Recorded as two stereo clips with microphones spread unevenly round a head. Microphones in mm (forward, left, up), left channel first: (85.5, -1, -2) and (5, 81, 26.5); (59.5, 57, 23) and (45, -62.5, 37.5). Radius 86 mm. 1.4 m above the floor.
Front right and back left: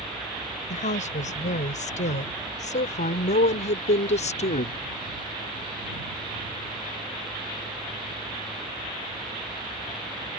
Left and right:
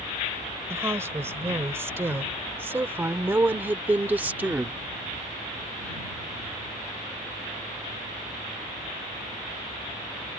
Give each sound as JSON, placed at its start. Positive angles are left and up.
{"t": 0.7, "sound": "a woman speaking", "azimuth_deg": -30}